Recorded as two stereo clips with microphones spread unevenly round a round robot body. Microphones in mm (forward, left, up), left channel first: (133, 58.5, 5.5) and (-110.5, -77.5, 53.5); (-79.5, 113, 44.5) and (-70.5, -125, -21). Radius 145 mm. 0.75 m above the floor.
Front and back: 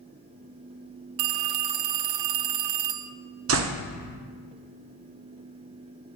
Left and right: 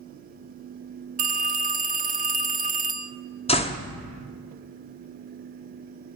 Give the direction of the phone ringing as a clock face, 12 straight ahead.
5 o'clock.